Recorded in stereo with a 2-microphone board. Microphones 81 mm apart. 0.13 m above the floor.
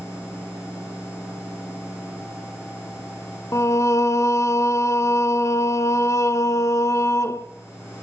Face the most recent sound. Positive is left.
turn(degrees=35)  # may be behind; listen again after turning